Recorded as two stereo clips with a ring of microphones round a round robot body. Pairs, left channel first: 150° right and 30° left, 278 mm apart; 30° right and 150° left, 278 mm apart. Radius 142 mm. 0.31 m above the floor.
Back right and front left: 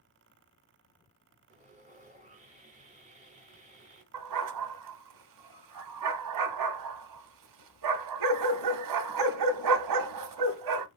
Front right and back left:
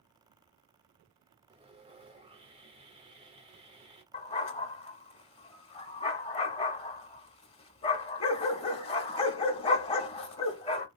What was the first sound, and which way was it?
Sawing, 85° left.